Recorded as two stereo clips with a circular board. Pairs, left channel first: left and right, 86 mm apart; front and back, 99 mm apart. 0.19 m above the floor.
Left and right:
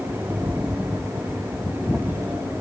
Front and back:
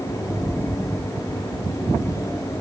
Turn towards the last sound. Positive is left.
No sound to turn to.